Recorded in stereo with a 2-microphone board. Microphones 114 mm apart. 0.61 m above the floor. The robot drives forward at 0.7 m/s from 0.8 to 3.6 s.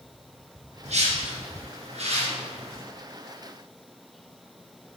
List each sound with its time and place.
0.8 s a whoosh: 85° right, 2.5 m; by 2.8 s 60° right (ahead or behind), 3 m